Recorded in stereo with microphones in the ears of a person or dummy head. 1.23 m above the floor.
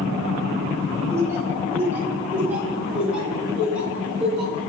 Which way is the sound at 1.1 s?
15° right (ahead or behind).